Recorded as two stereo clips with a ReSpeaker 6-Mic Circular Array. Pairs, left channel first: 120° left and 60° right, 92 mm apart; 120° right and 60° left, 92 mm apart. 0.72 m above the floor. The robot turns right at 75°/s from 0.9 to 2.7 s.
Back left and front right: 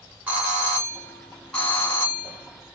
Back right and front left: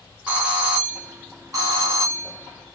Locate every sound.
0.3 s a doorbell: 5° right, 1.6 m; by 2.8 s 130° left, 1.6 m